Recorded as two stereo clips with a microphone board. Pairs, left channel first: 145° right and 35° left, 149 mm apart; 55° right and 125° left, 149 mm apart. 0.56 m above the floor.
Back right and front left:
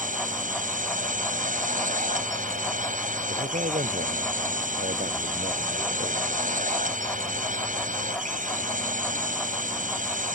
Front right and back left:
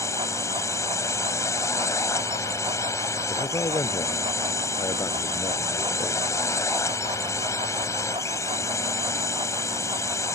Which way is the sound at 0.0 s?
15° left.